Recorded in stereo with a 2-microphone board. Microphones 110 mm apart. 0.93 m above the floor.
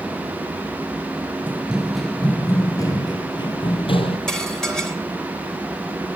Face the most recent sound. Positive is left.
turn(degrees=5)  # may be behind; listen again after turning